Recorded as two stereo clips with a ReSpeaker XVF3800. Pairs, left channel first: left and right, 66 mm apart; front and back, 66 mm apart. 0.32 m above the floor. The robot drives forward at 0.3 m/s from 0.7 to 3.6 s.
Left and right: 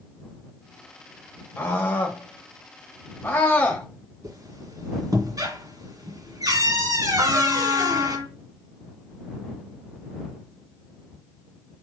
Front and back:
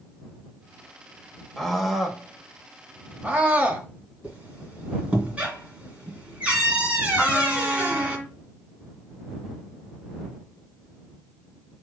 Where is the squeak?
110° right, 2 m.